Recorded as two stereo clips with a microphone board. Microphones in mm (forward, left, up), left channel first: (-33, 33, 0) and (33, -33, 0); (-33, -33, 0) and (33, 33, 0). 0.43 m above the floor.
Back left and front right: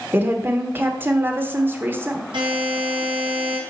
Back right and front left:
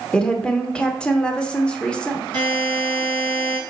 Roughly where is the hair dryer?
No hair dryer in this recording.